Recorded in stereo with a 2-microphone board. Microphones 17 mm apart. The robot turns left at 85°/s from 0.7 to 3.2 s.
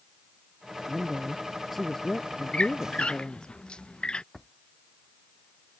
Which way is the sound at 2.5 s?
60° left (ahead or behind).